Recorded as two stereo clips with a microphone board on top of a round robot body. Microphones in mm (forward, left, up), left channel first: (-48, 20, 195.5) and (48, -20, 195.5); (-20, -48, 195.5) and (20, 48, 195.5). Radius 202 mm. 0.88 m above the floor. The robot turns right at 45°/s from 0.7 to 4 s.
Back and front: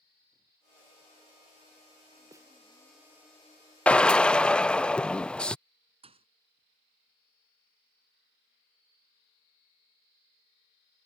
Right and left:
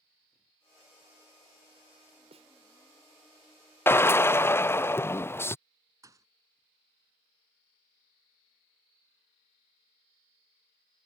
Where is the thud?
5° left.